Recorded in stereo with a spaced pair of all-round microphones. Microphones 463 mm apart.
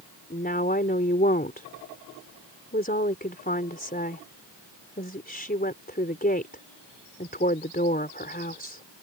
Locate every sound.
0.3 s a woman speaking: 20° left (ahead or behind)